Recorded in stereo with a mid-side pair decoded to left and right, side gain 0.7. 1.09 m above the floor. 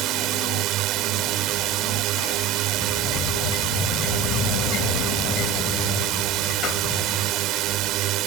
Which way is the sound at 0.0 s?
55° right.